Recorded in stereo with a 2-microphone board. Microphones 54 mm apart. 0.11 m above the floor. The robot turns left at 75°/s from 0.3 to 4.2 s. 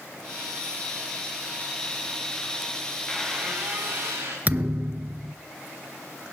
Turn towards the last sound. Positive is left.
turn(degrees=-30)  # may be behind; listen again after turning